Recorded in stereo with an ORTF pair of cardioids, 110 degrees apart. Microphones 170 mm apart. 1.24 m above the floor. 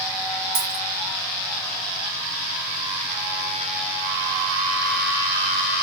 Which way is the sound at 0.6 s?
70° right.